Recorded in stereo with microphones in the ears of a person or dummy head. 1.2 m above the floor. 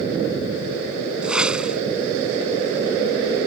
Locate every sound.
1.2 s a whoosh: 5° right (ahead or behind)